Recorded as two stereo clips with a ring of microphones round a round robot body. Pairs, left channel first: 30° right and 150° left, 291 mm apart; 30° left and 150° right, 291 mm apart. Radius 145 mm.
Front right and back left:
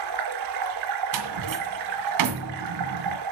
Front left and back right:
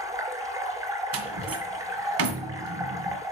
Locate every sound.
0.0 s running water: 130° left, 1.9 m
1.1 s a door slam: 170° left, 2.0 m